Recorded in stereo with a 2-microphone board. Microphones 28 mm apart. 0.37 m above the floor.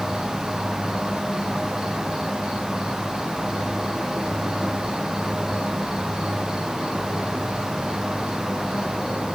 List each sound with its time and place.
0.0 s an insect: 20° right (ahead or behind), 4.5 m